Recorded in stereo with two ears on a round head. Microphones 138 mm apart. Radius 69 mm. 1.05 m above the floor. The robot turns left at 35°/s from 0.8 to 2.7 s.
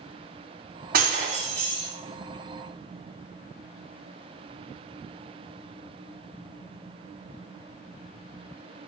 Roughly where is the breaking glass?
Right.